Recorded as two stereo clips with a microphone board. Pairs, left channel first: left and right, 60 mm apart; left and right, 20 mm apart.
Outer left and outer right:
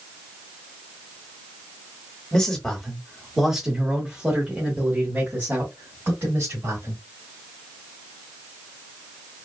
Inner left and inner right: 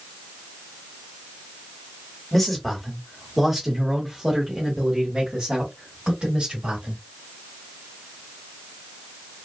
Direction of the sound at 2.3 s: 10° left (ahead or behind).